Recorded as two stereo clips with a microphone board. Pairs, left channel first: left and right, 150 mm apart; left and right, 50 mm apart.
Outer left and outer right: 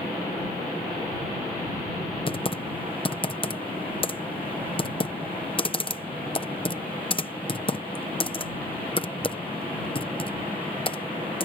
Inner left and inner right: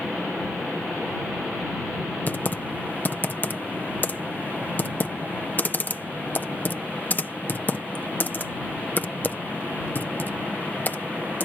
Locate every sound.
2.3 s typing on a keyboard: 35° left (ahead or behind)